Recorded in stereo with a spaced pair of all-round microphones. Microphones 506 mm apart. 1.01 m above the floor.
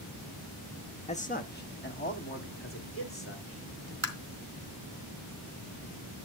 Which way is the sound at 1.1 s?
15° left (ahead or behind).